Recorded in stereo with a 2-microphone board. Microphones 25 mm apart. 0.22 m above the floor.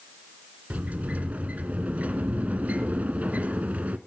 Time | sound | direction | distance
0.7 | a sliding door | 70° right (ahead or behind) | 0.9 m